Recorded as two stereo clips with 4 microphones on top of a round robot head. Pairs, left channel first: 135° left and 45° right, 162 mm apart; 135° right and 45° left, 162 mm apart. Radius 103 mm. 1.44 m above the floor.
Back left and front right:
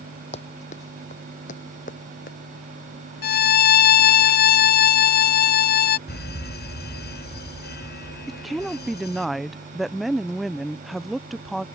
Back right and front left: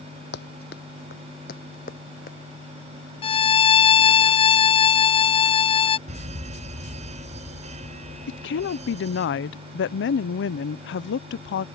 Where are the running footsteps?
170° right; by 2.4 s straight behind.